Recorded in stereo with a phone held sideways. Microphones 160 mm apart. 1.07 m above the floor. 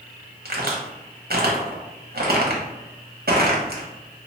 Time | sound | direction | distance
0.5 | a crack | 75° right (ahead or behind) | 0.9 m